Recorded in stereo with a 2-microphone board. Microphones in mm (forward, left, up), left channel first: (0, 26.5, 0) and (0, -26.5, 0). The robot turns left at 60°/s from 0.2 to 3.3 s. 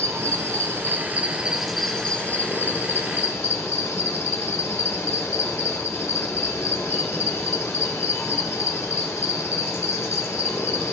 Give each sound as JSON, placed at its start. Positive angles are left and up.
{"t": 0.0, "sound": "an insect", "azimuth_deg": -85, "distance_m": 1.2}